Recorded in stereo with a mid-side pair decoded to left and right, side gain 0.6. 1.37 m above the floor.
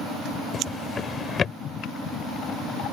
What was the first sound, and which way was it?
A drawer, 35° left.